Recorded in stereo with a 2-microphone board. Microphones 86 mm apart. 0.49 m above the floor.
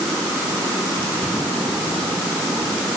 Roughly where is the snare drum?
No snare drum in this recording.